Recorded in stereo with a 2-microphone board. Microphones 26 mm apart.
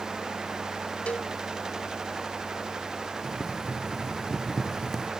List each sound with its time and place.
1.1 s a cowbell: 60° left (ahead or behind)
3.2 s boiling: 10° left (ahead or behind)